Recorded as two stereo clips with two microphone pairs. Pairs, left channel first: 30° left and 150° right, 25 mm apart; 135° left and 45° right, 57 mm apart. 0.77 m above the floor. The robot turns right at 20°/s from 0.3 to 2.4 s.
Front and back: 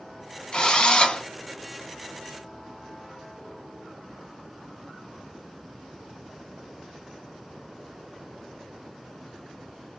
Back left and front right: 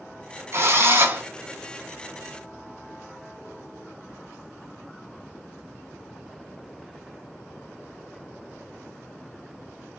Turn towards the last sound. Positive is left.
turn(degrees=20)